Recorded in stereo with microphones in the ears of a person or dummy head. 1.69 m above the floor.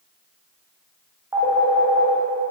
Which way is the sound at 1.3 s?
15° right (ahead or behind).